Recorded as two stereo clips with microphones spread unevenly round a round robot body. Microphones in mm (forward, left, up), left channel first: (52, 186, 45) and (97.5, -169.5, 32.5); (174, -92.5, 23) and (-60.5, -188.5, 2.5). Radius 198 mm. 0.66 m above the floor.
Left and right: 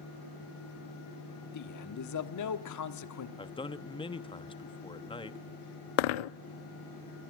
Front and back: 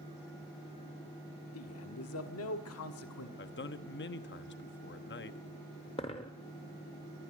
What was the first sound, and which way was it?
A man speaking, 60° left.